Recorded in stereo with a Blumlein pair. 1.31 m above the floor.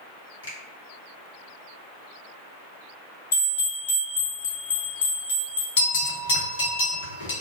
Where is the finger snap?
65° left, 1.6 m.